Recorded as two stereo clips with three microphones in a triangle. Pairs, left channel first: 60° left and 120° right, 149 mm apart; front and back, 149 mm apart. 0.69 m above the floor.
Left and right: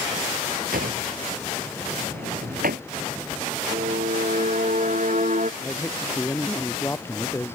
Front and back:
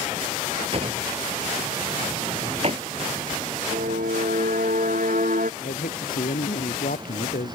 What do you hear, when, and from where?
0.7 s a drawer: 130° right
3.7 s a violin: 155° right
5.6 s a man speaking: 15° right